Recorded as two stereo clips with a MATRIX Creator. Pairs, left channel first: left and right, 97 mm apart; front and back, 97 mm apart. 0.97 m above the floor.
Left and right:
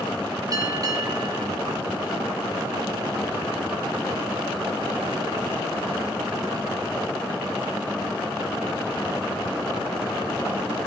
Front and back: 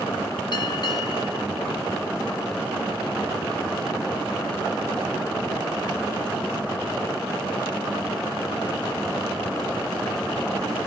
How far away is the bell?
About 2.5 m.